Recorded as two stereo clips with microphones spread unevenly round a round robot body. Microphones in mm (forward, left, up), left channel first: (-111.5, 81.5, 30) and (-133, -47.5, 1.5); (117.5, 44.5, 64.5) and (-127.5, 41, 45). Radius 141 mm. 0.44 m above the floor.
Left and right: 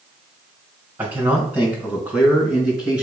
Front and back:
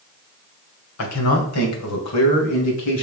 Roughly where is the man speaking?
Ahead right.